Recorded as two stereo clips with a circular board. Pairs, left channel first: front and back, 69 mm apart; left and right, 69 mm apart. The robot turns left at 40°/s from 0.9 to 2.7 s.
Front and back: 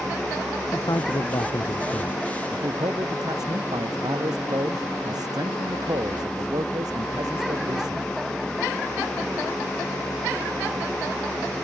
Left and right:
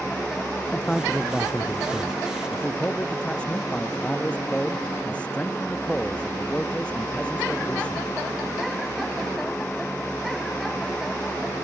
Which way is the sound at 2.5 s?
170° left.